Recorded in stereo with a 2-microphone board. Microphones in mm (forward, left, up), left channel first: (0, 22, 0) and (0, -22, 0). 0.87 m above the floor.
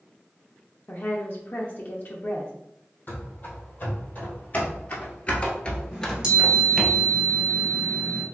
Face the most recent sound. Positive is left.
turn(degrees=-20)  # may be behind; listen again after turning